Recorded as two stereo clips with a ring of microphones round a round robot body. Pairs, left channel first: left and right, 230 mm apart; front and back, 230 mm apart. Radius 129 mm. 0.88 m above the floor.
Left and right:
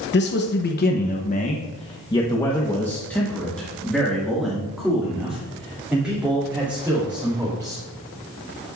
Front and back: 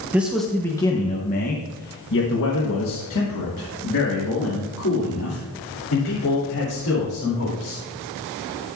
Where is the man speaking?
100° left, 0.9 m; by 7.8 s 10° right, 3.5 m.